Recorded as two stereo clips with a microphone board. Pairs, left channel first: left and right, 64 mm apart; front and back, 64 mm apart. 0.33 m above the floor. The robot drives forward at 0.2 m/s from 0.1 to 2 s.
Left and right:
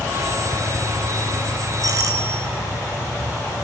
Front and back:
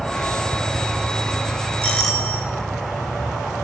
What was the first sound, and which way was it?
A doorbell, 85° right.